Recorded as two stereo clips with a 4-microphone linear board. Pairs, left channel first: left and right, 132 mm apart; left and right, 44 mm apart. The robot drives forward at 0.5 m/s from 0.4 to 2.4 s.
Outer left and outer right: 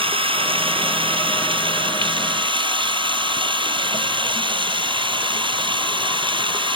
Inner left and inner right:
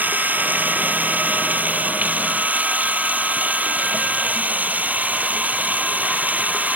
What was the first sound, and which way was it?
Running water, 45° right (ahead or behind).